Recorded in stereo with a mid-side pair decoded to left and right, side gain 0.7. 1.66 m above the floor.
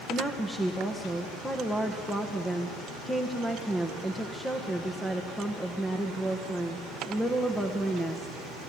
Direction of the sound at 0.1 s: 5° left.